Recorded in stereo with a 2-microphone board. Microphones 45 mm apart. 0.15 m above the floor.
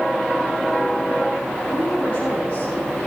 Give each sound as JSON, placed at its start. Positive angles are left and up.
{"t": 1.7, "sound": "a woman speaking", "side_deg": 35, "distance_m": 6.5}